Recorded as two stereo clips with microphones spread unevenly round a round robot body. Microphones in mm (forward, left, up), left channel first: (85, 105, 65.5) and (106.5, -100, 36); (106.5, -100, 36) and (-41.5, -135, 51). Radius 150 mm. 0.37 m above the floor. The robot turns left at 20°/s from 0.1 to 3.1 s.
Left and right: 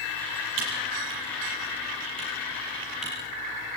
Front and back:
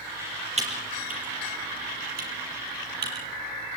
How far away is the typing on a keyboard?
About 7 m.